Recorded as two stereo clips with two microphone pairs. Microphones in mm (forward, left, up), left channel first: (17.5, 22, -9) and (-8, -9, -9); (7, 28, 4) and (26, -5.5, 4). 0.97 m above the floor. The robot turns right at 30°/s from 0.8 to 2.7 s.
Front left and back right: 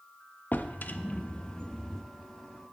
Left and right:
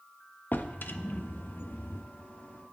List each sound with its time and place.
0.5 s a drawer: 95° left, 0.5 m; by 2.0 s 130° left, 0.5 m